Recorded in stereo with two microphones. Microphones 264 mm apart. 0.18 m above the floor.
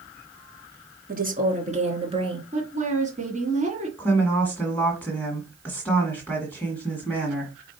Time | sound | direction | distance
1.1 | a woman speaking | 35° right (ahead or behind) | 2 m
2.5 | a woman speaking | 30° right (ahead or behind) | 1.9 m
4.0 | a woman speaking | 5° left (ahead or behind) | 1.8 m